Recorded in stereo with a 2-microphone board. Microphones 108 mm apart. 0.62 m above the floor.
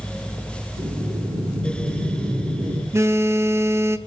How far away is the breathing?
About 9 m.